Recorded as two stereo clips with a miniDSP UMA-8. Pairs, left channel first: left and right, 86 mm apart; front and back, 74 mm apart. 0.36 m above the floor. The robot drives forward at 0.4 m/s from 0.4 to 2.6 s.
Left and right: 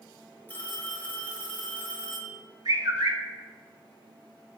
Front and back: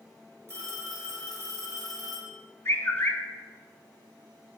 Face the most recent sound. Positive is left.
turn(degrees=-55)